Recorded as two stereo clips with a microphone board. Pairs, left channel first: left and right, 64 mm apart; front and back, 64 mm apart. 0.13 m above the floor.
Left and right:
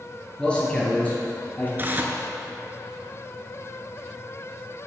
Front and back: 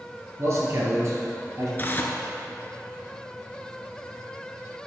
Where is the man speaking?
160° left, 2.5 m; by 1.7 s 150° left, 4 m.